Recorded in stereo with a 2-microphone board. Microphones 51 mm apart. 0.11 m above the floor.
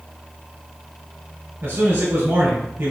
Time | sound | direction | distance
1.6 | a man speaking | 45° right (ahead or behind) | 2.0 m